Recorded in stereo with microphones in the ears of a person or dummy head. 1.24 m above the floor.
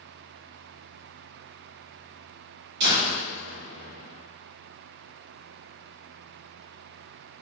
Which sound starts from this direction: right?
A door slam, at 2.8 s.